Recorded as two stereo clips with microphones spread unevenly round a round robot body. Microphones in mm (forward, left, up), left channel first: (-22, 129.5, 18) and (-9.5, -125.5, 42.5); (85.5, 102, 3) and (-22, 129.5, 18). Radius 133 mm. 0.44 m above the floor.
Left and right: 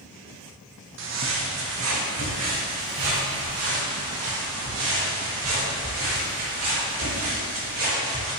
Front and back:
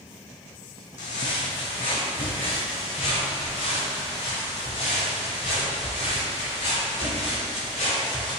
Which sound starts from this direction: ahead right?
Footsteps, at 1.0 s.